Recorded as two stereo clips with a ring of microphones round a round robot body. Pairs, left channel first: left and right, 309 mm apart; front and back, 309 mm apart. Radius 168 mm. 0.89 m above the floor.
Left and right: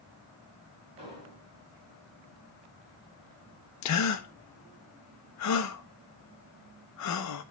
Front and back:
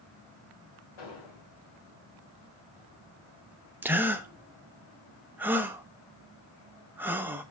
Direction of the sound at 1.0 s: 15° right.